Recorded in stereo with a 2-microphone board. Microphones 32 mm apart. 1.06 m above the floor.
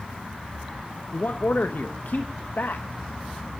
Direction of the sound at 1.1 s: 70° left (ahead or behind).